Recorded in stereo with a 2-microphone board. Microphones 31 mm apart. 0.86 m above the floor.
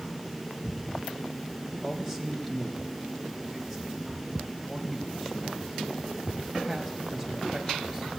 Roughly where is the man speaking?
Centre.